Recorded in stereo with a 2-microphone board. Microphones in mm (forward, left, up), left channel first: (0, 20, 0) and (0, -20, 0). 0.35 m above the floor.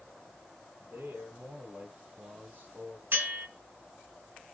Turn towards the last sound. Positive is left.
turn(degrees=-60)  # may be behind; listen again after turning